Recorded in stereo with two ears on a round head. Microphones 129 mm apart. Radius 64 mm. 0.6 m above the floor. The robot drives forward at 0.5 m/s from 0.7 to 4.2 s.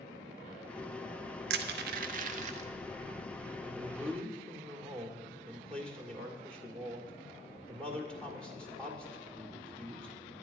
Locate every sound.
1.5 s crushing: 80° right, 0.7 m; by 2.7 s 45° right (ahead or behind), 0.9 m
3.6 s a man speaking: 10° left (ahead or behind), 1.5 m